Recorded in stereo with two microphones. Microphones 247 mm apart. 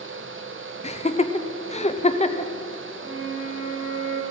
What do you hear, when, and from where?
0.8 s laughter: 25° left (ahead or behind), 0.8 m
3.0 s a flute: 50° right (ahead or behind), 1.8 m